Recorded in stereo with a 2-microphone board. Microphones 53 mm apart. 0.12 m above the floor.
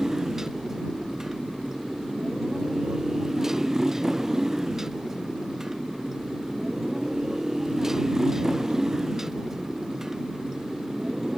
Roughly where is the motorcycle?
Centre.